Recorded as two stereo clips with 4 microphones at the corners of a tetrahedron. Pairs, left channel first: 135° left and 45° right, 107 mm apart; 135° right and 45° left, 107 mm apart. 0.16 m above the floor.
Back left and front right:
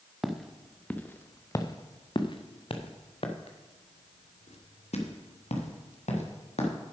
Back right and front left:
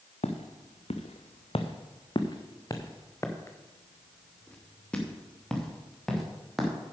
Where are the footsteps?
130° right, 1.2 m; by 6.7 s 135° left, 3 m.